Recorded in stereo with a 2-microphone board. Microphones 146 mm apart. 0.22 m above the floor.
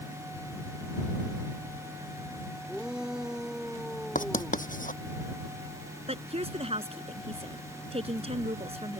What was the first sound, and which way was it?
A shout, 5° right (ahead or behind).